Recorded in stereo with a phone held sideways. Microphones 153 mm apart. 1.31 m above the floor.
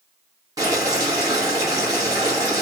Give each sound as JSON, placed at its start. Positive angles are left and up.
{"t": 0.6, "sound": "boiling", "side_deg": -20, "distance_m": 1.5}